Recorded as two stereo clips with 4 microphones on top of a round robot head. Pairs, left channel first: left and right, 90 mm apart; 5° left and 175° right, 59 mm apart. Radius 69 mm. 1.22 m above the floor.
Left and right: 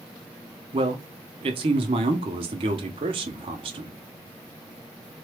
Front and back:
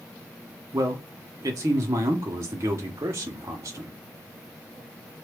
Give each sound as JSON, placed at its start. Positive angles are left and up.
{"t": 0.7, "sound": "a man speaking", "azimuth_deg": -125, "distance_m": 0.5}